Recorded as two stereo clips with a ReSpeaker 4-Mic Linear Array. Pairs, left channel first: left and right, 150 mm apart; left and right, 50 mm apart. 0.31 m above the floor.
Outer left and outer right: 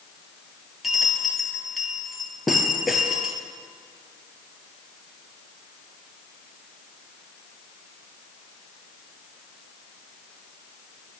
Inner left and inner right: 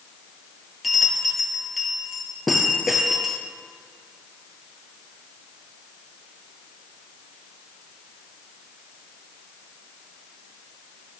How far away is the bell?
About 2.5 m.